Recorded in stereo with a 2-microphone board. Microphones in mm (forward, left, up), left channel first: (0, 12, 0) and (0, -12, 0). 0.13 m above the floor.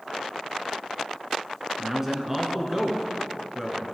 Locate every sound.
1.8 s a man speaking: 15° right (ahead or behind), 1.6 m